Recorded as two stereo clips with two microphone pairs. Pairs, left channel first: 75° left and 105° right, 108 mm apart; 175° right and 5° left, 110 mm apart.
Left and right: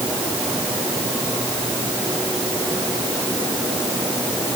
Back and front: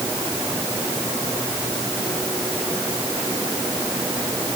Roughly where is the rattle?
No rattle in this recording.